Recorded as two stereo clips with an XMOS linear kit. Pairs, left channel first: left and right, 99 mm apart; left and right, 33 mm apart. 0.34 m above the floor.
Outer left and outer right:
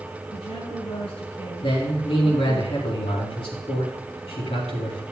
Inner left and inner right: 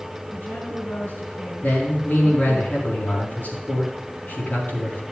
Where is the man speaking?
70° left (ahead or behind), 4 m.